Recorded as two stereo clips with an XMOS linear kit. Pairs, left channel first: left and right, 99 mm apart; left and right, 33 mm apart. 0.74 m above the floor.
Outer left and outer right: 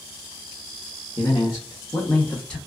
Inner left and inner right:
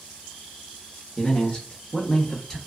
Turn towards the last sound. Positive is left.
turn(degrees=10)  # may be behind; listen again after turning